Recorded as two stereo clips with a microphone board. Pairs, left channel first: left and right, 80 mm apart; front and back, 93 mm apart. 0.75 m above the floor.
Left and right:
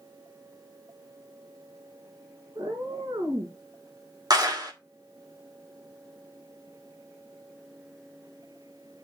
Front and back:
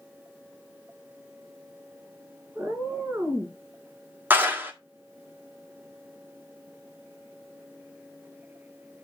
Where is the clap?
115° right, 1.6 m.